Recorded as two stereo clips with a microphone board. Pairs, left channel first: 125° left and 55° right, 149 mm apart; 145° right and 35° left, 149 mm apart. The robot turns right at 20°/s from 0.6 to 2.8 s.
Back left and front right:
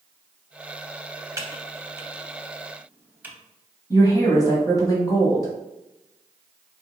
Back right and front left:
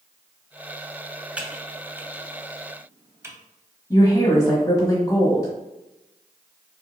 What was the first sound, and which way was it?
Typing on a keyboard, 30° right.